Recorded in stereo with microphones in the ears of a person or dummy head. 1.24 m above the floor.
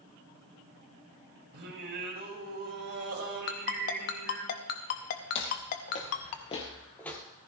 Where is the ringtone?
50° left (ahead or behind), 0.8 m.